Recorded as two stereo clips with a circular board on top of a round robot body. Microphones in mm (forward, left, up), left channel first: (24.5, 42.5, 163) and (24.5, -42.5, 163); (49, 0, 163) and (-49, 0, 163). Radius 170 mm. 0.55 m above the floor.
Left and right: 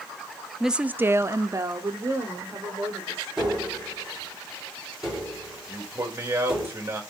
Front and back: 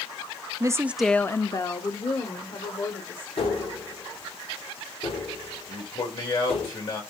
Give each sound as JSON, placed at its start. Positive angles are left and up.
{"t": 0.6, "sound": "a woman speaking", "azimuth_deg": -175, "distance_m": 0.7}
{"t": 3.4, "sound": "tapping", "azimuth_deg": -10, "distance_m": 5.0}
{"t": 5.7, "sound": "a man speaking", "azimuth_deg": -30, "distance_m": 3.0}